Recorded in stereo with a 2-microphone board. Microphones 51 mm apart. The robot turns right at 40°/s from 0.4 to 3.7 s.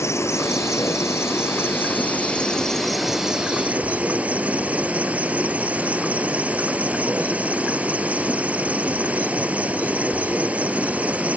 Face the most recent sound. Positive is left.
turn(degrees=-150)